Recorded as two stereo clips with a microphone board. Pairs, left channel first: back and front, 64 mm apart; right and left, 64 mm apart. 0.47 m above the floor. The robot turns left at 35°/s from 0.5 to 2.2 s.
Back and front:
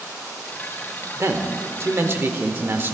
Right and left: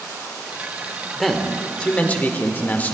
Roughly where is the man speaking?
Ahead.